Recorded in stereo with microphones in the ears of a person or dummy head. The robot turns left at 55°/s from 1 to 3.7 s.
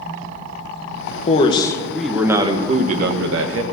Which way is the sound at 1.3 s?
45° left.